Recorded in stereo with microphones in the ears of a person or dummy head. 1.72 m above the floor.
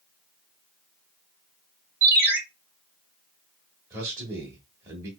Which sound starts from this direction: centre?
A man speaking, at 3.9 s.